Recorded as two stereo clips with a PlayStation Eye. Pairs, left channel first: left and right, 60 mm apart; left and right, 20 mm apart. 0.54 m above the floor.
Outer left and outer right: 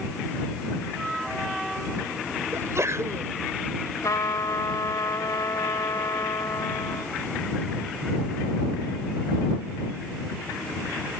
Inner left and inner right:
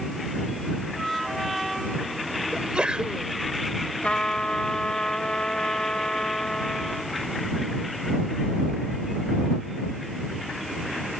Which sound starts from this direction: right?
A sneeze, at 2.5 s.